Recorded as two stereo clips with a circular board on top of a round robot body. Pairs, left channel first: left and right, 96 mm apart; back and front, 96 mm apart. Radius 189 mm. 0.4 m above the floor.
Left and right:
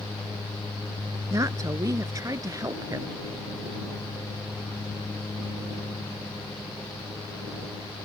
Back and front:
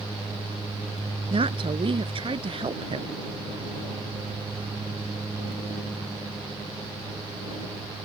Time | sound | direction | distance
1.3 | a woman speaking | 30° right | ?